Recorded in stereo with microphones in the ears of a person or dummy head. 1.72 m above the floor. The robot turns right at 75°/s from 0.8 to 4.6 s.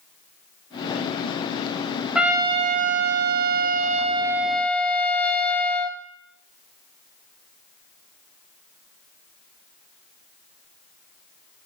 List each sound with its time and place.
2.1 s a trumpet: straight behind, 0.5 m; by 6.0 s 5° left, 0.5 m